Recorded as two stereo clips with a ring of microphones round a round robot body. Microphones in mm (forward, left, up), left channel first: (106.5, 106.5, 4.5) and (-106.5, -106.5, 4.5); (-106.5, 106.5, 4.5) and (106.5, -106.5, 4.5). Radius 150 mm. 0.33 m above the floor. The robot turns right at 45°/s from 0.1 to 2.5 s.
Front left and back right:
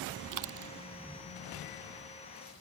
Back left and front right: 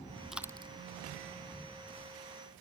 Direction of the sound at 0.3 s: 135° right.